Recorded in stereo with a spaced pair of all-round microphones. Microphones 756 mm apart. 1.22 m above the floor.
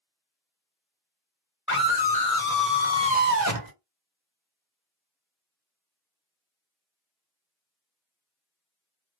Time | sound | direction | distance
1.7 | a scream | 15° left (ahead or behind) | 1.4 m